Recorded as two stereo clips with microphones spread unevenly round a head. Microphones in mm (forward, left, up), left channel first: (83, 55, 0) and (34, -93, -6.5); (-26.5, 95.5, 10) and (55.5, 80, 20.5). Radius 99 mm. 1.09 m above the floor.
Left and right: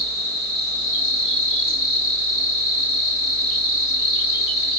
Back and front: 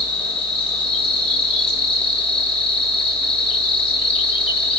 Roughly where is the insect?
Behind.